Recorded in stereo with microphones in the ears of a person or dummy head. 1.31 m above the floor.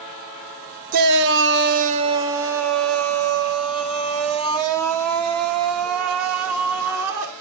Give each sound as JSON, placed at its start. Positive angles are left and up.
{"t": 0.9, "sound": "a shout", "side_deg": -45, "distance_m": 0.7}